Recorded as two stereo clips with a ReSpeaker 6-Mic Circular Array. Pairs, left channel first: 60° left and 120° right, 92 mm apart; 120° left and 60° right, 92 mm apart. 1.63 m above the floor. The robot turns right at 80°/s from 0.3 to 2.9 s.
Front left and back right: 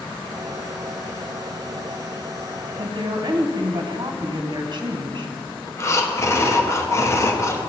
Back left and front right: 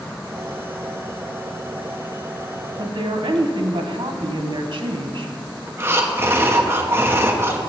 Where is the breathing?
5° left, 1.0 m.